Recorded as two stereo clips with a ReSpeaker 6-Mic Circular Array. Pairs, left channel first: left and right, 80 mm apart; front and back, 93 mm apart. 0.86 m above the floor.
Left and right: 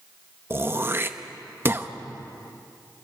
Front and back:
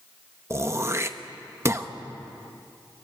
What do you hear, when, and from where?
0.5 s throat clearing: 135° right, 0.9 m